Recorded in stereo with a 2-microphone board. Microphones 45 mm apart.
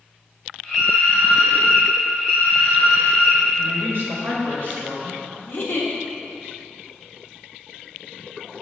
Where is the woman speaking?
50° right (ahead or behind), 2 m.